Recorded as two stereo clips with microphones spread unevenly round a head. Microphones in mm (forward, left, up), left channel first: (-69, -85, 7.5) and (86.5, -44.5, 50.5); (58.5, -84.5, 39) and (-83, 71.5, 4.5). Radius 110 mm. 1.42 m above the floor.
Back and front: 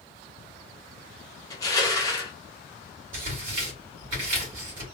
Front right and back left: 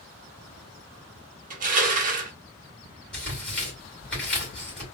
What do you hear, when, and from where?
1.5 s crushing: 110° left, 0.8 m
3.1 s tearing paper: 40° left, 2.5 m